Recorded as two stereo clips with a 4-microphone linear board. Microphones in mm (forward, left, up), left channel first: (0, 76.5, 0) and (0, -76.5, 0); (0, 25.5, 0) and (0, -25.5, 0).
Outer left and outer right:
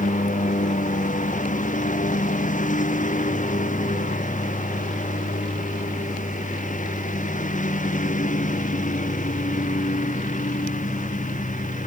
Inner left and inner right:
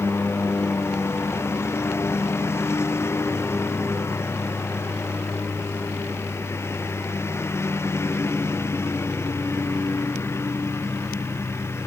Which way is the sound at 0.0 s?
55° left (ahead or behind).